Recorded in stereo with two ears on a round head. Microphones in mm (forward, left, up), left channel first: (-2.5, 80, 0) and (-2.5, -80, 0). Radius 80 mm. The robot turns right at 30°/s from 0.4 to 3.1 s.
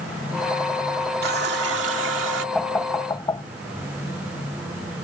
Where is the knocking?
Centre (ahead or behind); by 3.4 s 20° left (ahead or behind).